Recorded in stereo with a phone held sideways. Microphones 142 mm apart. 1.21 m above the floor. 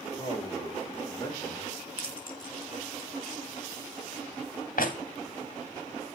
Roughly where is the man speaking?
Centre.